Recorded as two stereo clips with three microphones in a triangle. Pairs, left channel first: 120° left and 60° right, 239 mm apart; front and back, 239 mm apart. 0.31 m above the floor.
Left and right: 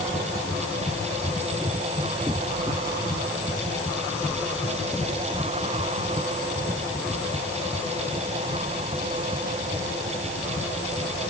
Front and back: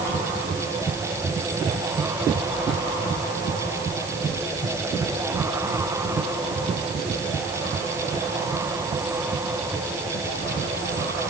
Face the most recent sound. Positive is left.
No sound to turn to.